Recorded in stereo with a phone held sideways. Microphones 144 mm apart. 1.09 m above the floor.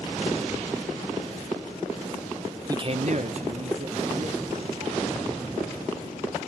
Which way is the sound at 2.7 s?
25° right (ahead or behind).